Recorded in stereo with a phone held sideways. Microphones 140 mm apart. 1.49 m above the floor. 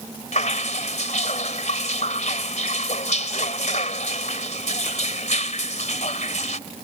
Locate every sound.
0.3 s dripping: 60° left (ahead or behind)